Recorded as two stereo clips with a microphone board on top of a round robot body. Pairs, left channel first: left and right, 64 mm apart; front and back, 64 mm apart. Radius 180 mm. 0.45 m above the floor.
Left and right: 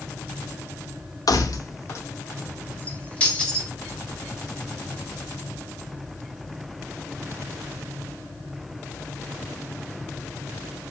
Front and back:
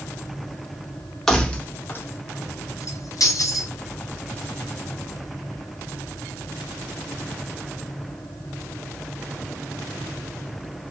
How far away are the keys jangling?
About 1.0 m.